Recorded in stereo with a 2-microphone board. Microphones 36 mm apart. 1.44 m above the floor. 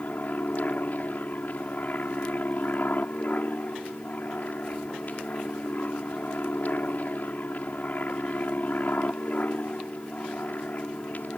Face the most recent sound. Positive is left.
turn(degrees=50)  # may be behind; listen again after turning